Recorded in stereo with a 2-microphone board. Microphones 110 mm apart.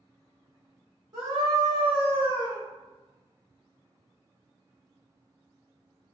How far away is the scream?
About 1.5 m.